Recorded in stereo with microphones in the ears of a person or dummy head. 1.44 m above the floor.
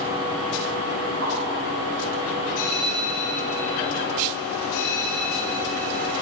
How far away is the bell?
About 5 m.